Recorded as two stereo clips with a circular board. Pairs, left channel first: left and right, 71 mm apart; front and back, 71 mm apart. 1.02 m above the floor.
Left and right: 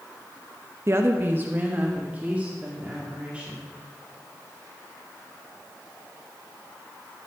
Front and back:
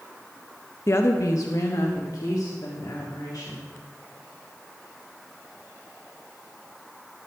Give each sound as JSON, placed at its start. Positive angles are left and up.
{"t": 0.9, "sound": "a woman speaking", "azimuth_deg": -45, "distance_m": 0.8}